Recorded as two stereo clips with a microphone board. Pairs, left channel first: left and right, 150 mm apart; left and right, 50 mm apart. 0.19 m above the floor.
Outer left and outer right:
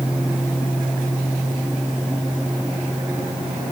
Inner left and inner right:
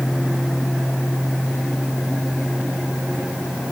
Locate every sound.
Only background noise.